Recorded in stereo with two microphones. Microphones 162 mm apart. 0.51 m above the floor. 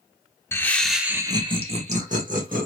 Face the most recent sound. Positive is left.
turn(degrees=-55)  # may be behind; listen again after turning